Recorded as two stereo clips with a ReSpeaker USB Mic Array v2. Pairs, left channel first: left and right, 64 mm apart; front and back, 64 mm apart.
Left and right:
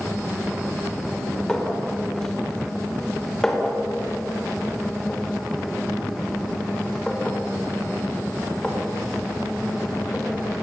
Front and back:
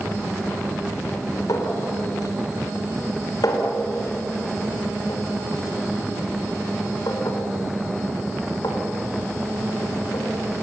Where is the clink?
10° left, 4 m.